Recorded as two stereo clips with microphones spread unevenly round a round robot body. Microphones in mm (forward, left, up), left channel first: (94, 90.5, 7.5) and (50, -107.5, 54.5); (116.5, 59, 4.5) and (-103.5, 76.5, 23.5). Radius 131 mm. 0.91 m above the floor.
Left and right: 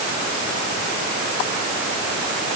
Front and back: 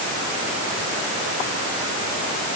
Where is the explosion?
I don't hear an explosion.